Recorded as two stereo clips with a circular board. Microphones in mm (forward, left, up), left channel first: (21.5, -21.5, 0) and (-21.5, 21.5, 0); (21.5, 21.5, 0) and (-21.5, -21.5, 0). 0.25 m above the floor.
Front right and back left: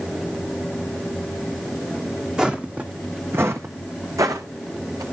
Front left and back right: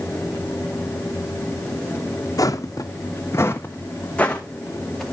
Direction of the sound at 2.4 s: 60° left.